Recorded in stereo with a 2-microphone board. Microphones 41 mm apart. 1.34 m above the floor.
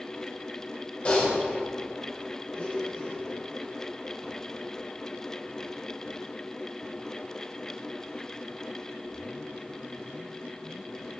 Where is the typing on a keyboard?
35° left (ahead or behind), 2.5 m.